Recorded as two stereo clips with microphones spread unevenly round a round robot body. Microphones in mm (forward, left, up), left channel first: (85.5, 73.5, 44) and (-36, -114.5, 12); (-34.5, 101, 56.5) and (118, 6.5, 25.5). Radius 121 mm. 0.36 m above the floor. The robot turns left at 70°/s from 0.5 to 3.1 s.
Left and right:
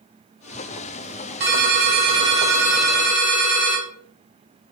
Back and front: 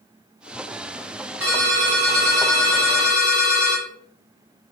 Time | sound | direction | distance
1.4 | a ringtone | 130° right | 1.3 m